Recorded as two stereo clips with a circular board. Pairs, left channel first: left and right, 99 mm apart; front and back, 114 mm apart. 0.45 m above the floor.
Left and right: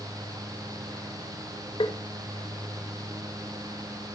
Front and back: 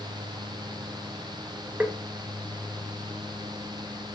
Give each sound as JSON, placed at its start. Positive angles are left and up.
{"t": 1.8, "sound": "tapping", "azimuth_deg": 105, "distance_m": 1.3}